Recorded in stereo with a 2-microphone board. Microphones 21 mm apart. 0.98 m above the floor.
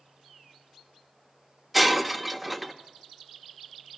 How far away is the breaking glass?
About 0.8 m.